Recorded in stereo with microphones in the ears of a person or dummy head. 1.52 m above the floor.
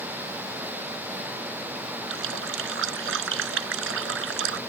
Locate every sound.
2.1 s a running tap: 80° right